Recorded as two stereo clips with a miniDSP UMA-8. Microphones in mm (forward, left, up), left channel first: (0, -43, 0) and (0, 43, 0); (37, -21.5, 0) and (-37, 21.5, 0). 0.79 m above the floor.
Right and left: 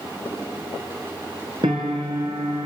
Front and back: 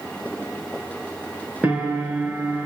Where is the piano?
75° left, 3.5 m.